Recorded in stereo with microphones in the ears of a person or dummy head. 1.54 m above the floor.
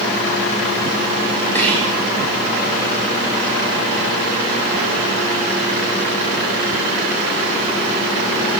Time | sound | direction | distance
1.6 | whispering | 15° left (ahead or behind) | 2 m